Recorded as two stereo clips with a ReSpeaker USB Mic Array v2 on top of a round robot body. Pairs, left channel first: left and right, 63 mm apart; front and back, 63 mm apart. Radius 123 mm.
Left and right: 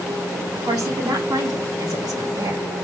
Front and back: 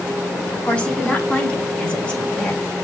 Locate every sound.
0.5 s a woman speaking: 70° right, 5.5 m; by 2.6 s 75° right, 4 m